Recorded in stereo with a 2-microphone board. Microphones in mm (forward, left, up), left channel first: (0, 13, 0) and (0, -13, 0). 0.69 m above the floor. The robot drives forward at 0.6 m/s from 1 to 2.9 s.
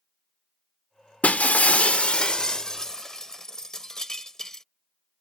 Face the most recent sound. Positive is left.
turn(degrees=25)  # may be behind; listen again after turning